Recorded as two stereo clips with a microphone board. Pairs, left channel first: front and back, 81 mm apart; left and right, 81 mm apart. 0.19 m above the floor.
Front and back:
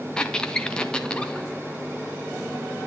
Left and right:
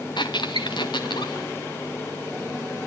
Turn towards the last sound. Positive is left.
turn(degrees=80)